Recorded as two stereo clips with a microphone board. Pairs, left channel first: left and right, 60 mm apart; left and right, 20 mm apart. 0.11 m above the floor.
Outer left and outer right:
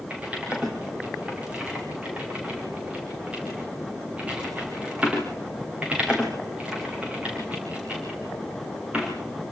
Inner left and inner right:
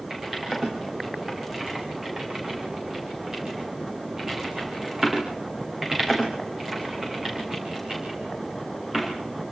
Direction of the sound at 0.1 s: 20° right (ahead or behind).